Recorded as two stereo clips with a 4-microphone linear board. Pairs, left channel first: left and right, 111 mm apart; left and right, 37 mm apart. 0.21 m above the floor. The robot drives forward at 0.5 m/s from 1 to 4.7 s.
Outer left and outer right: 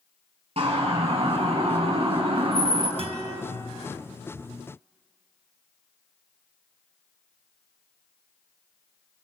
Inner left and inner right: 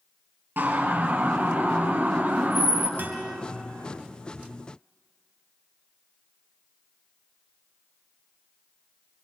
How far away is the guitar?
About 3 m.